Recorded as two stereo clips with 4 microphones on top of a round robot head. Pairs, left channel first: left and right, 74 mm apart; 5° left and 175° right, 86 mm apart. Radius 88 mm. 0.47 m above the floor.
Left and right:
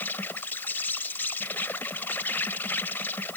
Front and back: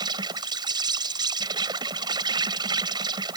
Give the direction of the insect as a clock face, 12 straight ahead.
7 o'clock.